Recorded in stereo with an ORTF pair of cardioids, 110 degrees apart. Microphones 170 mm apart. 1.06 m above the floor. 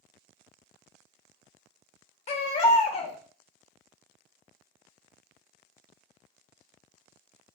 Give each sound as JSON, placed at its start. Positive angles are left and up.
{"t": 2.3, "sound": "a baby crying", "azimuth_deg": 40, "distance_m": 0.7}